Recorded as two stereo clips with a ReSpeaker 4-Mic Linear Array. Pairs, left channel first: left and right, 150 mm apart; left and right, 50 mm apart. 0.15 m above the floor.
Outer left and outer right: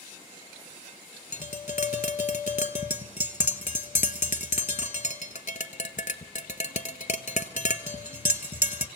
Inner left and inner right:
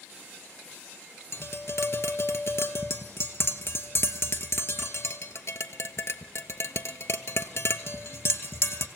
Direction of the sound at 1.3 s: 60° left (ahead or behind).